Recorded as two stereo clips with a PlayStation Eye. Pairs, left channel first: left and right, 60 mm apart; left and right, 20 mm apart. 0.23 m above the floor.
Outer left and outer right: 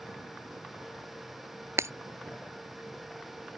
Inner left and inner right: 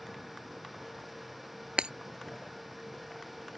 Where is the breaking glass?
55° right (ahead or behind).